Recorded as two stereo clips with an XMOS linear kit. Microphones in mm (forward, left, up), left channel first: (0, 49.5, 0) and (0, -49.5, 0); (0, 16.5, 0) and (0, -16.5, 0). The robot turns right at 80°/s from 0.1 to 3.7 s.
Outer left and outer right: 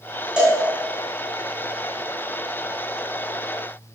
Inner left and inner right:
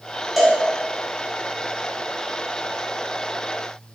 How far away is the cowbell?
About 0.7 m.